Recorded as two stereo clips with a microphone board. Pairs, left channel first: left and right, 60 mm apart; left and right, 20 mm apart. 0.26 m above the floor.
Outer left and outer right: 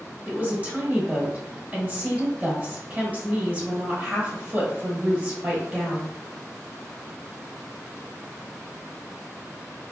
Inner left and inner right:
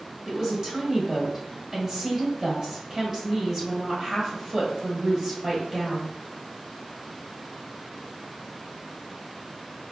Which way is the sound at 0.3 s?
25° right (ahead or behind).